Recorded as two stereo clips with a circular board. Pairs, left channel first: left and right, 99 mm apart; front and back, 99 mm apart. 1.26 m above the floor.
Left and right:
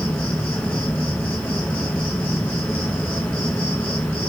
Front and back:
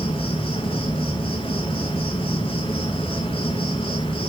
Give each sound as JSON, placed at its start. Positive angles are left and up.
{"t": 0.0, "sound": "an insect", "azimuth_deg": 15, "distance_m": 2.5}